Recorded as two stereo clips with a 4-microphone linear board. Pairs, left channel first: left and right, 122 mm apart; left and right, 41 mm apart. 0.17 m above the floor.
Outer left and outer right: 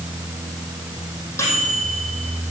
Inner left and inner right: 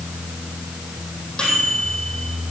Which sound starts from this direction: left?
A microwave, at 1.4 s.